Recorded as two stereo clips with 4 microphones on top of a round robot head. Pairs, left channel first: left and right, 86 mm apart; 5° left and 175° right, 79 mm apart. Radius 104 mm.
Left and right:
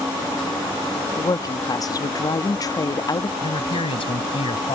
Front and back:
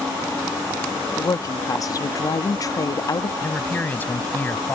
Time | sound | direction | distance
1.2 | a woman speaking | 45° left | ?
3.4 | a man speaking | 75° left | ?